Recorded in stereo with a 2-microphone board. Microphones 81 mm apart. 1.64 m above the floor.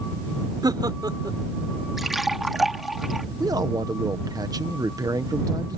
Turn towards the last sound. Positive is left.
turn(degrees=-50)  # may be behind; listen again after turning